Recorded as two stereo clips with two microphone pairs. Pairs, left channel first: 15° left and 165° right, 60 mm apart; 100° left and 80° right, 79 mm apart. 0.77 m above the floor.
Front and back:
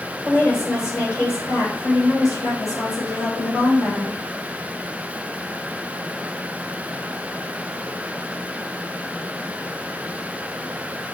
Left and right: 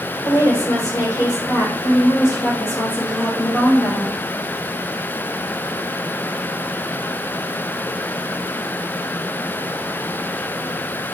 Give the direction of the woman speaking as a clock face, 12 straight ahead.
10 o'clock.